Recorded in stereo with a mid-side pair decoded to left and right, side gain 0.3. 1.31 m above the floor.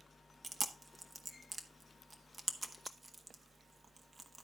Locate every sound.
0.4 s chewing: 45° right, 1.1 m